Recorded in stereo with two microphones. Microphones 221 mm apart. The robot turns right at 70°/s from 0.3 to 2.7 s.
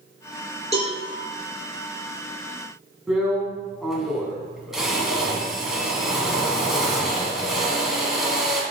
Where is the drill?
Centre (ahead or behind), 1.5 m.